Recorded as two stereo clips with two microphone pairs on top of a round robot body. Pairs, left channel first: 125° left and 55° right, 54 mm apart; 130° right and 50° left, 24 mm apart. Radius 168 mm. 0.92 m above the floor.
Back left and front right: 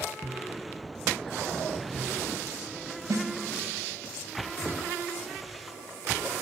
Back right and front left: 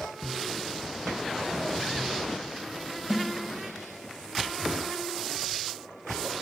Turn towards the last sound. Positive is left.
turn(degrees=-30)